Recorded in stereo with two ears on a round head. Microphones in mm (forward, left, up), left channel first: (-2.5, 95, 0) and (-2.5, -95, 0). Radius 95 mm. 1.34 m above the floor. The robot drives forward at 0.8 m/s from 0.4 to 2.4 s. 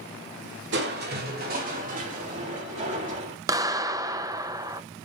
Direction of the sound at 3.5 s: 15° right (ahead or behind).